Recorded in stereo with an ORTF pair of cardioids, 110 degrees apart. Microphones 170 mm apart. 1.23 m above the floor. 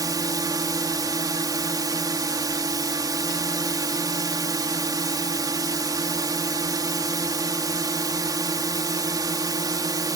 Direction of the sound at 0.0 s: 25° right.